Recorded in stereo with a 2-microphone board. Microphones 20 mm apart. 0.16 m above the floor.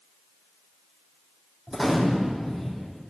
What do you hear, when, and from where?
1.7 s a gunshot: centre (ahead or behind), 4.5 m